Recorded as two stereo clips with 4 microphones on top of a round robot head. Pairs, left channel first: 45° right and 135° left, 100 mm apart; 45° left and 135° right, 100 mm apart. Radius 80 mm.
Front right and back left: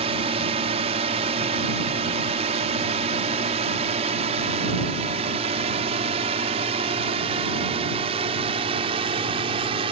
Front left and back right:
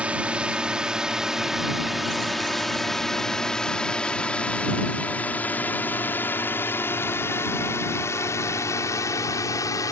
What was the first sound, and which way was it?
A drone, 150° left.